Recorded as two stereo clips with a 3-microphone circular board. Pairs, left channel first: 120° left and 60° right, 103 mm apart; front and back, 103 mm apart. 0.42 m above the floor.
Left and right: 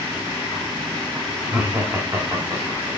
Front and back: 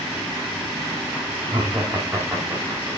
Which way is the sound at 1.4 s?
130° right.